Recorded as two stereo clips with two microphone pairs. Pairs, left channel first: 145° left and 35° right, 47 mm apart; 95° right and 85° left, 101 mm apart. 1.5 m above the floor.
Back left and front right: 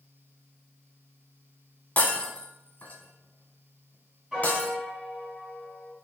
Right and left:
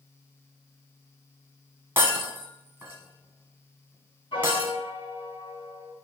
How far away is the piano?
About 2.5 m.